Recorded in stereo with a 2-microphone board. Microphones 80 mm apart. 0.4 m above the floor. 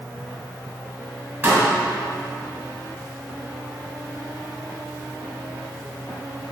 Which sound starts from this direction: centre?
A pop, at 1.4 s.